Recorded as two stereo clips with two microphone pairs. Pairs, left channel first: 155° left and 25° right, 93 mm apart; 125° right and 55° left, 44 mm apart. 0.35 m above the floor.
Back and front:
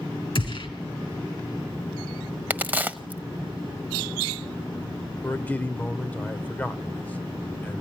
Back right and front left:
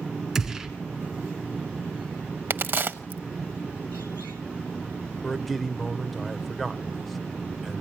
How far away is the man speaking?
About 0.8 m.